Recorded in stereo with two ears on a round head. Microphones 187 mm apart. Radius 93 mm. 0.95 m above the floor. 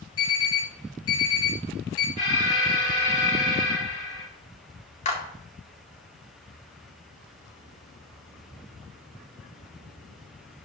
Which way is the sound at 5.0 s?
35° left (ahead or behind).